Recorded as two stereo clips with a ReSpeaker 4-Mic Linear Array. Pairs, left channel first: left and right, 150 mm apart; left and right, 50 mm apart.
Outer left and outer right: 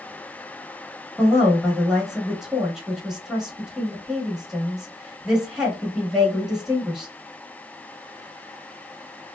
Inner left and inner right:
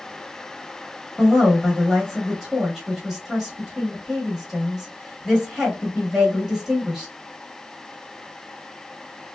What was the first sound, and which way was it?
A woman speaking, 5° right (ahead or behind).